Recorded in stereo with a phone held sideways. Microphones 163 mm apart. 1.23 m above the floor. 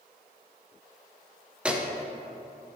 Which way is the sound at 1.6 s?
5° right (ahead or behind).